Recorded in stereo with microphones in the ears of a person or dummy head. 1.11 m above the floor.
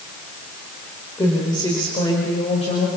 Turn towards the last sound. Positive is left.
turn(degrees=40)  # may be behind; listen again after turning